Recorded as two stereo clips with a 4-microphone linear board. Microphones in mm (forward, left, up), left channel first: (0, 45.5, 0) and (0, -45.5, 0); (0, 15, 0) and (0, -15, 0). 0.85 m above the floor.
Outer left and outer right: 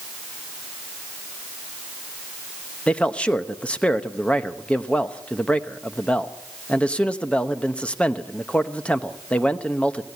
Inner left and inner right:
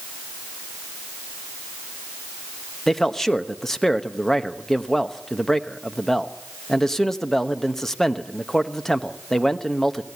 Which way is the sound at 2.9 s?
15° left (ahead or behind).